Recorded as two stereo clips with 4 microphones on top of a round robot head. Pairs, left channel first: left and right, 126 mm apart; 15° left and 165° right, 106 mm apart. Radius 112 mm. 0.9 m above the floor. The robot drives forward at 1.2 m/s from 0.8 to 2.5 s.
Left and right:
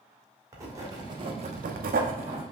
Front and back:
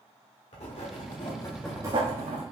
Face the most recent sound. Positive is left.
turn(degrees=-150)